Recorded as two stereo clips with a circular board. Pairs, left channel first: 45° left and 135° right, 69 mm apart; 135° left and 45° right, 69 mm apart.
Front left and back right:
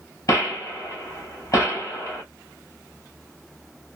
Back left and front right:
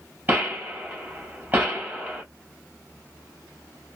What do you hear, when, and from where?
0.3 s a gunshot: 10° left, 2 m